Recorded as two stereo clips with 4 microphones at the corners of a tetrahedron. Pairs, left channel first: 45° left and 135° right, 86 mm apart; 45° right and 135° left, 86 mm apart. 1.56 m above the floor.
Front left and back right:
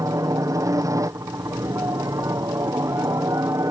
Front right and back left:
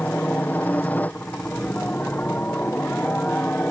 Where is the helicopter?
110° right.